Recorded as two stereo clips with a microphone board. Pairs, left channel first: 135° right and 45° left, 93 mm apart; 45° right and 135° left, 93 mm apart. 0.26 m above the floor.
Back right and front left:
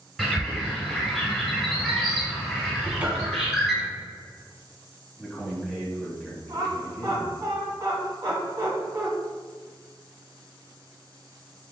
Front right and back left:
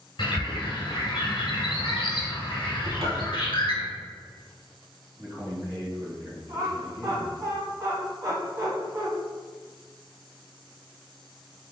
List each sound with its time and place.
0.2 s a bird: 45° right, 1.4 m
2.8 s a cupboard door: 120° left, 0.8 m
5.2 s a man speaking: 135° left, 1.6 m
6.5 s laughter: 95° left, 1.7 m